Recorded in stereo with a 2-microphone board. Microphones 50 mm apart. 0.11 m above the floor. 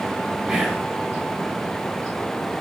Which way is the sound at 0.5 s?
20° right (ahead or behind).